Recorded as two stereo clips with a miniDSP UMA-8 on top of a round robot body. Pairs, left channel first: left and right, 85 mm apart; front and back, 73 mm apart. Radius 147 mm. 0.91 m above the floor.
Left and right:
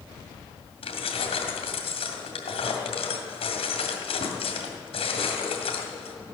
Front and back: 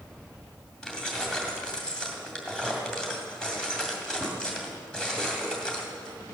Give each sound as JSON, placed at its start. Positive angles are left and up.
{"t": 0.8, "sound": "keys jangling", "azimuth_deg": 80, "distance_m": 2.0}